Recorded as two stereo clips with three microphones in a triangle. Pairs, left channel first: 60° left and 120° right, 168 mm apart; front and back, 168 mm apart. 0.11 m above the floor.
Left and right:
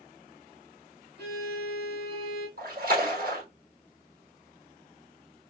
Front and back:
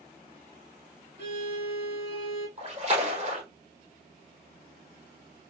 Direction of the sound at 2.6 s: 135° right.